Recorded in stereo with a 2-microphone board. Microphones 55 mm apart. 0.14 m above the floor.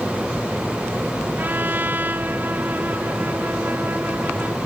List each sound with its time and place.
1.4 s a trumpet: 35° right (ahead or behind)